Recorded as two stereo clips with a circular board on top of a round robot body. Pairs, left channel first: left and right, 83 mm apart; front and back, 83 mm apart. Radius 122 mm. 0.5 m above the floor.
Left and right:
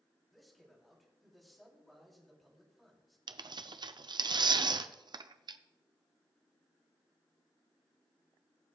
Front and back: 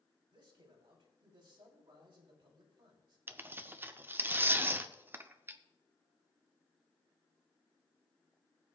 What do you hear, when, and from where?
0.3 s a man speaking: straight behind, 3 m
3.3 s tearing paper: 115° right, 0.6 m